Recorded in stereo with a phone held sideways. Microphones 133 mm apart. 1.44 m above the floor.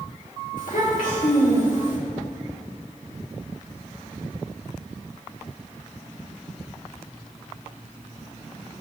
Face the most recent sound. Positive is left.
turn(degrees=70)  # may be behind; listen again after turning